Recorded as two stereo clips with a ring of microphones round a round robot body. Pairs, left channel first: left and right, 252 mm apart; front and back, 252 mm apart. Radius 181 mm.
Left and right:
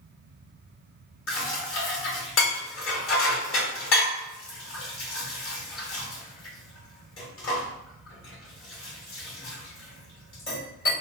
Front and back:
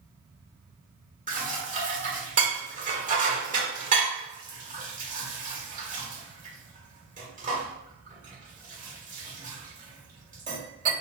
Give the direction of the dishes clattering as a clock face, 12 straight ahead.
8 o'clock.